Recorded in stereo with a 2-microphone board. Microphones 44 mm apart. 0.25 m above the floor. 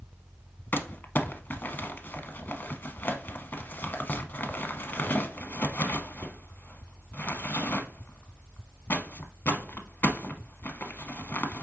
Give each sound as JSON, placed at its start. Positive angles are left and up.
{"t": 0.7, "sound": "crumpling", "side_deg": 45, "distance_m": 0.7}